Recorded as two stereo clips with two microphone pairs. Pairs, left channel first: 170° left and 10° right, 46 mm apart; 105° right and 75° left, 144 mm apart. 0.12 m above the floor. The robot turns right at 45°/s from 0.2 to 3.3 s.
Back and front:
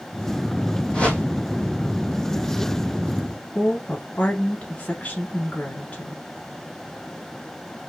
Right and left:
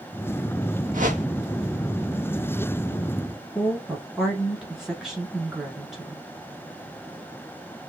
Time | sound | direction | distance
0.9 | a whoosh | 100° left | 1.2 m
3.5 | a woman speaking | 160° left | 1.2 m